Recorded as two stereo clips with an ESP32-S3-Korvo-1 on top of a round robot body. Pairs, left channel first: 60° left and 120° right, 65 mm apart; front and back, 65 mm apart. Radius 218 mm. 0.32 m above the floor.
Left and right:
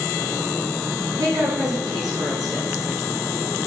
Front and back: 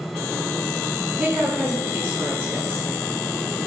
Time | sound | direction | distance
1.2 | a woman speaking | 115° right | 4.5 m